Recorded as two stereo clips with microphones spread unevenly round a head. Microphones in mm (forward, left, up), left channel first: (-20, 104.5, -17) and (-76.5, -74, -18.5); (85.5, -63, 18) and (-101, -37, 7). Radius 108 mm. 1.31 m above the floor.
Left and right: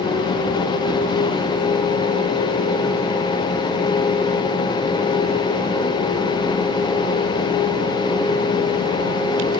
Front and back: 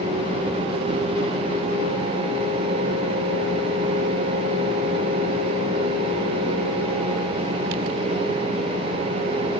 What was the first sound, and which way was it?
Only background noise.